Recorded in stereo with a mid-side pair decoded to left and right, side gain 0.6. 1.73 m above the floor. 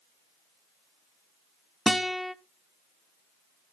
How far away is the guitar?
About 0.6 m.